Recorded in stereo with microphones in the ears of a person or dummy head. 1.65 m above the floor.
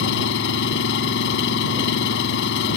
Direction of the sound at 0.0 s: 75° left (ahead or behind).